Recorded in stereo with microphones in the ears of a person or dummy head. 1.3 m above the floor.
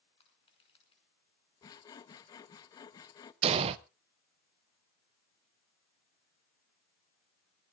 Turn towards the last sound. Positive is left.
turn(degrees=-30)  # may be behind; listen again after turning